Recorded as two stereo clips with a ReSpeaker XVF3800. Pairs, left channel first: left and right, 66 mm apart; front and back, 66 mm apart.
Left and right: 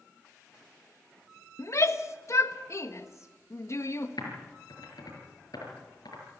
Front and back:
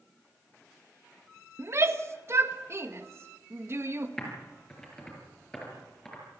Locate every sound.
1.6 s a shout: 135° left, 1.5 m
4.2 s typing on a keyboard: 80° left, 6 m